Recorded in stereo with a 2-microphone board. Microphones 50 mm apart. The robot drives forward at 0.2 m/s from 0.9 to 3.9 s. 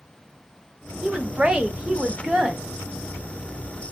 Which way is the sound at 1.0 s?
20° right (ahead or behind).